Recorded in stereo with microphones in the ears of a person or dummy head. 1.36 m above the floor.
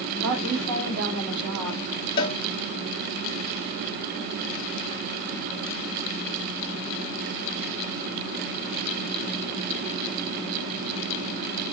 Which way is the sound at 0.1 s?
75° right (ahead or behind).